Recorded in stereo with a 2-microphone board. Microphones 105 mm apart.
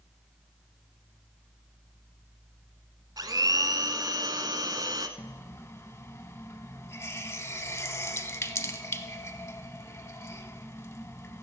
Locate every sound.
3.2 s a blender: 40° right (ahead or behind), 0.9 m
5.2 s a running tap: 25° left (ahead or behind), 0.7 m